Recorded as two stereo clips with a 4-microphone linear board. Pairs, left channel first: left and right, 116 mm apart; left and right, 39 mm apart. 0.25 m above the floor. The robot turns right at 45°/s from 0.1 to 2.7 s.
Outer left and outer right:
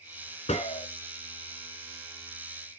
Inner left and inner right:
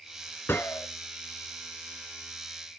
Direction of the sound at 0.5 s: 75° left (ahead or behind).